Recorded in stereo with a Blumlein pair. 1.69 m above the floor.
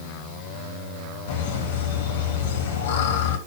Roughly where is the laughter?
Ahead left.